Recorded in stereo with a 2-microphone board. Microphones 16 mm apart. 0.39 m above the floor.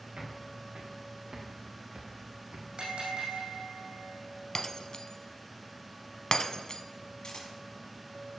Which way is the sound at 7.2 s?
60° left (ahead or behind).